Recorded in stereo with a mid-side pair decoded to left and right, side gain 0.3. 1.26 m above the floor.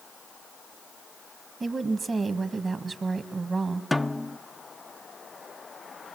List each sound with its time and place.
1.6 s a woman speaking: 50° right, 1.8 m
3.9 s a snare drum: 15° left, 0.5 m